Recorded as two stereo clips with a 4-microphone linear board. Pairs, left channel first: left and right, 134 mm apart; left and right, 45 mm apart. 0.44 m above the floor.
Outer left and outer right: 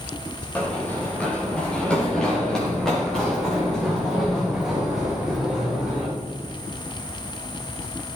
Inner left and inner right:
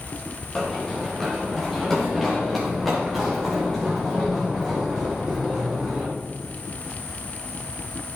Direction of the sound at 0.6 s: 10° left (ahead or behind).